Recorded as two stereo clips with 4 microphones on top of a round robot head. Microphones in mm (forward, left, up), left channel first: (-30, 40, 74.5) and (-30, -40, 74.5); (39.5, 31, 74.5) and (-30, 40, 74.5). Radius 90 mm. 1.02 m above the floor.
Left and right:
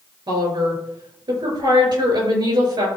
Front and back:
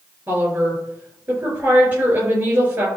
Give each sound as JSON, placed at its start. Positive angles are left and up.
{"t": 0.3, "sound": "a woman speaking", "azimuth_deg": -125, "distance_m": 5.0}